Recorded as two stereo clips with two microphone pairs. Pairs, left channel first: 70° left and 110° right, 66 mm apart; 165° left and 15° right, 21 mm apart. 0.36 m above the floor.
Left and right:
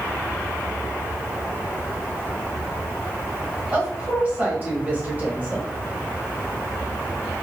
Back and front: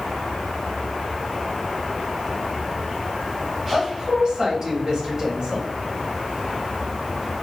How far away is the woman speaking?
About 1.6 m.